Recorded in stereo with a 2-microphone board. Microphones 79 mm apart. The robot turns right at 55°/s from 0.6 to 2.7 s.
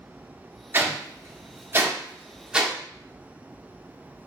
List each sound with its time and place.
0.7 s a whoosh: 25° right (ahead or behind), 0.5 m; by 2.8 s 10° right (ahead or behind), 0.5 m